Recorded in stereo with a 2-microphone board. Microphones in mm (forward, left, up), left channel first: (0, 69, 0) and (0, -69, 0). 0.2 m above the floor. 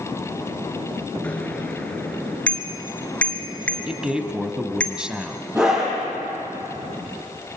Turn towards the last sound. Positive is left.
turn(degrees=-15)  # may be behind; listen again after turning